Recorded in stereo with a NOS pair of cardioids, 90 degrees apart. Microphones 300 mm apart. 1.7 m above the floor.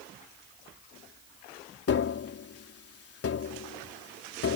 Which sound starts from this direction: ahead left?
Tapping, at 1.9 s.